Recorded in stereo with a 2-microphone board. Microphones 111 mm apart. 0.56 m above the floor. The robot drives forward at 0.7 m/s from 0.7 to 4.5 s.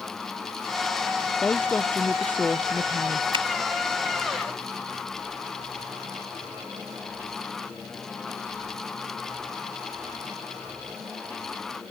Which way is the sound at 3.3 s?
55° right (ahead or behind).